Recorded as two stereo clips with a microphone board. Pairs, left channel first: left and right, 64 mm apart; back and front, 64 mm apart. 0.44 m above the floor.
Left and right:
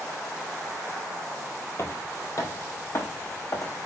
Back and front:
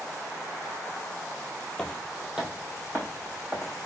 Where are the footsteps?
105° left, 0.6 m; by 3.7 s 55° left, 1.5 m.